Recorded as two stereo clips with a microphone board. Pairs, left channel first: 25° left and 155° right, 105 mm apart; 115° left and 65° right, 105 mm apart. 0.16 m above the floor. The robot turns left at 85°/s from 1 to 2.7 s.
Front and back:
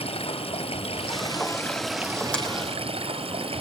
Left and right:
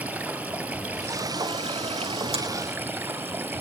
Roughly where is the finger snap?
Ahead right.